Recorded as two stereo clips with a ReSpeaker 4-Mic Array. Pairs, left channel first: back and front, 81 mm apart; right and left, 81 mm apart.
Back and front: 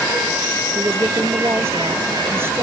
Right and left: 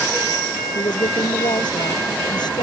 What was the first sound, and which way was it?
A woman speaking, 60° right.